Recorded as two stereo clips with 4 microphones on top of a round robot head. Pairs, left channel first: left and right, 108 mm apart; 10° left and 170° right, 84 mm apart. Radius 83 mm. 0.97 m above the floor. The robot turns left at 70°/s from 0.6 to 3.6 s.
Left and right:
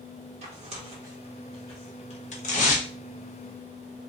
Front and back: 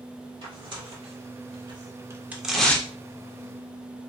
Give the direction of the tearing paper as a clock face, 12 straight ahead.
4 o'clock.